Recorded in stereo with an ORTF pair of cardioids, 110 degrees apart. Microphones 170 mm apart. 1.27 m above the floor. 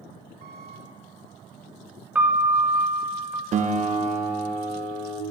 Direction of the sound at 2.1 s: 10° right.